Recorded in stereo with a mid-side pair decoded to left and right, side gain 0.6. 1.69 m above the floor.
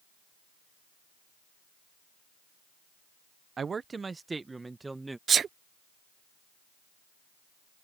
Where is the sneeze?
35° right.